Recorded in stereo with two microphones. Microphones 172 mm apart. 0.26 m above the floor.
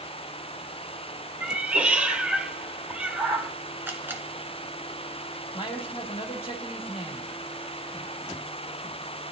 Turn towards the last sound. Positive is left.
turn(degrees=35)  # may be behind; listen again after turning